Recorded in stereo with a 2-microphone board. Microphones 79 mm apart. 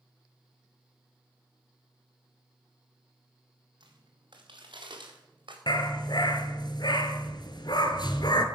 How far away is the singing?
No singing in this recording.